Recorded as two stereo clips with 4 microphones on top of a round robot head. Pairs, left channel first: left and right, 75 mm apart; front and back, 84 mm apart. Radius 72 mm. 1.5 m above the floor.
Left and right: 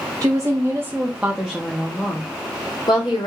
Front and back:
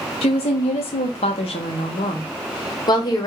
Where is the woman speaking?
30° right, 1.3 m; by 3.3 s 40° left, 1.5 m.